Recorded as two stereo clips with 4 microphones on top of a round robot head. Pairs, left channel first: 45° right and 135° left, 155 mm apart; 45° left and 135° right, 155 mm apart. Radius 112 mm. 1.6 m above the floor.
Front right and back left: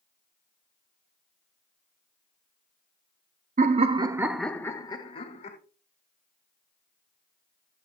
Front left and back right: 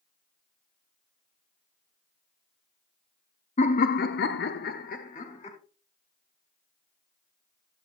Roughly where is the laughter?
Left.